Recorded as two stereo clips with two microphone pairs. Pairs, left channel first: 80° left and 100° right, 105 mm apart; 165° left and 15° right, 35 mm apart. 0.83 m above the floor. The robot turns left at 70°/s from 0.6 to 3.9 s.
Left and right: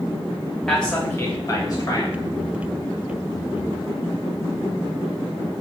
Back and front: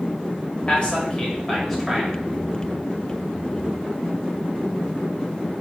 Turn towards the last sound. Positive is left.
turn(degrees=-65)